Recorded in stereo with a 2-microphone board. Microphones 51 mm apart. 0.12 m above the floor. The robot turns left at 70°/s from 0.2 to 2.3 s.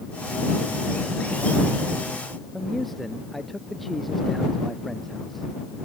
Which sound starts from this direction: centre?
A man speaking, at 2.5 s.